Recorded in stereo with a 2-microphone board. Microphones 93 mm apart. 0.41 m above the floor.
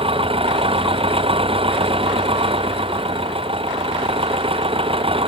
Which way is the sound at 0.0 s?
80° right.